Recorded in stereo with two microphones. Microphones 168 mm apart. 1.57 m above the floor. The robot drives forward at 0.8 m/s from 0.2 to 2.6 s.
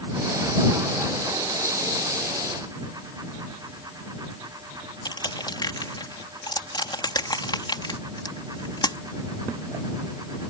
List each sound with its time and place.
5.0 s crushing: 25° left (ahead or behind)